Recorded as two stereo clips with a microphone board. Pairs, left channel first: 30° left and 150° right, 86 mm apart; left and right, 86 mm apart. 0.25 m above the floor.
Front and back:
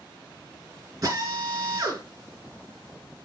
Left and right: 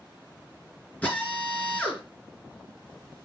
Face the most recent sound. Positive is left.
turn(degrees=165)